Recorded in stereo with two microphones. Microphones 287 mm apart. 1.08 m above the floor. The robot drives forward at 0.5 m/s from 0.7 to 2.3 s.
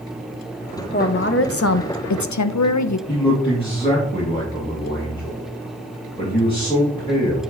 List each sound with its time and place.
0.9 s a woman speaking: 35° left (ahead or behind), 0.8 m; by 3.0 s 65° left (ahead or behind), 0.5 m
3.1 s a man speaking: 15° left (ahead or behind), 2.0 m